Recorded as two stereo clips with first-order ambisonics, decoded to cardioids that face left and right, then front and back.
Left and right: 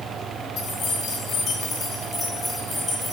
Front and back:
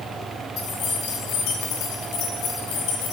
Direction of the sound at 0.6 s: 45° left.